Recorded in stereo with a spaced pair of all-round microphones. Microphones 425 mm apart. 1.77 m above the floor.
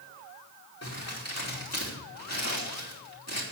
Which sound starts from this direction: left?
Crumpling, at 0.8 s.